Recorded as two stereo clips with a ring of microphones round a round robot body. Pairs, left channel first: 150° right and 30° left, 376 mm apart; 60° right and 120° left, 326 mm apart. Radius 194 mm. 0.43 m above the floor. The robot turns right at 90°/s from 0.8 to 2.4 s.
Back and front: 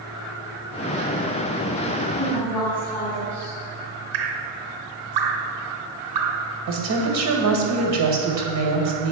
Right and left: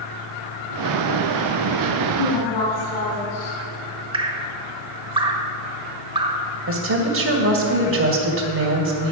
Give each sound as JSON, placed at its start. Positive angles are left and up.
{"t": 2.2, "sound": "a woman speaking", "azimuth_deg": -85, "distance_m": 3.5}
{"t": 4.1, "sound": "dripping", "azimuth_deg": 45, "distance_m": 1.3}
{"t": 6.7, "sound": "a woman speaking", "azimuth_deg": 75, "distance_m": 2.0}